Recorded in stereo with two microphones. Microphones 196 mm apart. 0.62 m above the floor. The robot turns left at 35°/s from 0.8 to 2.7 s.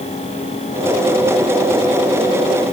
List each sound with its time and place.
Only background noise.